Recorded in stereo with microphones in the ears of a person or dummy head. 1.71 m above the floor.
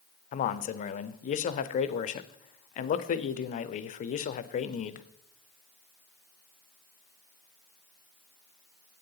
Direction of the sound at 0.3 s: 45° left (ahead or behind).